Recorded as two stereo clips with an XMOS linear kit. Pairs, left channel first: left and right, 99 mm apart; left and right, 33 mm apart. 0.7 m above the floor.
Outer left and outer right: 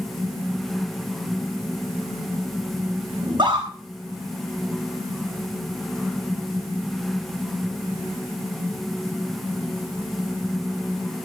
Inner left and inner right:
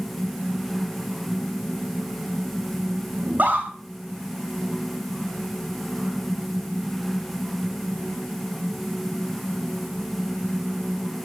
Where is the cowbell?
No cowbell in this recording.